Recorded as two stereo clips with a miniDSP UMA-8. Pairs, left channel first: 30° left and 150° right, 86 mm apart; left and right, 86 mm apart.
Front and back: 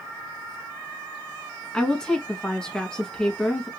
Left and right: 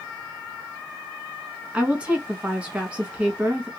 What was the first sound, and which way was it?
A woman speaking, 35° right.